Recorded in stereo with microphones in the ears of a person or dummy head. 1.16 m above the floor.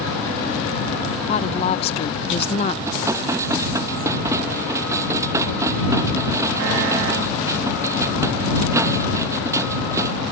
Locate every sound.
1.3 s a woman speaking: 25° left (ahead or behind)
2.9 s dishes clattering: 10° right (ahead or behind)